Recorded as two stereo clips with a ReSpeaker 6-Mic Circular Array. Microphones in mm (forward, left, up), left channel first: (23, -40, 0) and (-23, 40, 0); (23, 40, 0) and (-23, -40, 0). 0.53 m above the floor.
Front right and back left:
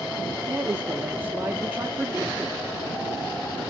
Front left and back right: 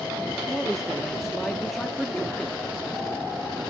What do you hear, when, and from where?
0.5 s a man speaking: 145° left, 0.8 m